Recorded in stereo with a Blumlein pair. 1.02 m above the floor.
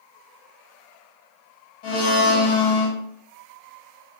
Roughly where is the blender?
Ahead left.